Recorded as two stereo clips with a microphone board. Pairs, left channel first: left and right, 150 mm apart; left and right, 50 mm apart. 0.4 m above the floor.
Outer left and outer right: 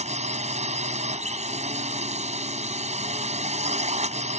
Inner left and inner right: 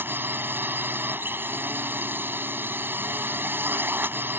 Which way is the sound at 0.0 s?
50° right (ahead or behind).